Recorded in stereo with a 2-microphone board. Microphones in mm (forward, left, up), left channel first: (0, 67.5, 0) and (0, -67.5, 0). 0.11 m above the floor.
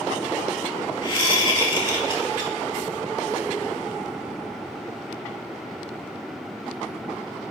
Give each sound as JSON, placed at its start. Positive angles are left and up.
{"t": 1.0, "sound": "a whoosh", "side_deg": 35, "distance_m": 2.5}